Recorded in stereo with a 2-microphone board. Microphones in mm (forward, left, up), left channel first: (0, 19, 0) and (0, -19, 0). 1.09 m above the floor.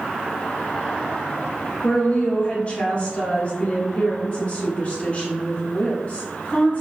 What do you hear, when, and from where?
1.8 s a woman speaking: 35° left (ahead or behind), 1.4 m